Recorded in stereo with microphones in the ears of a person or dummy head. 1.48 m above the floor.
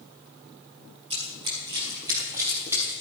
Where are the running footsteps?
25° right (ahead or behind), 2 m; by 2.9 s 10° right (ahead or behind), 2.5 m.